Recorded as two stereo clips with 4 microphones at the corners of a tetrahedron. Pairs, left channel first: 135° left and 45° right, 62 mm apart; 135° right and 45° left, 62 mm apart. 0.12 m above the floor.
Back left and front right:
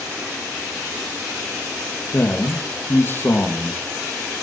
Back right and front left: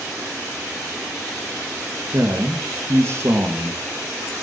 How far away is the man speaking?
About 4 m.